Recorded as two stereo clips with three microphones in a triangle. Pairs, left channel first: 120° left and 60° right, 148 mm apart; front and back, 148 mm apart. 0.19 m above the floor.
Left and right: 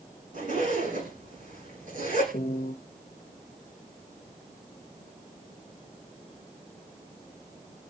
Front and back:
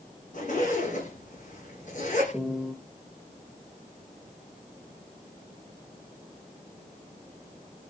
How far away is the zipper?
About 10 m.